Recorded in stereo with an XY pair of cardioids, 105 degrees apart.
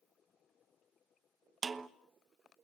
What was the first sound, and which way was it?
A snare drum, 35° right.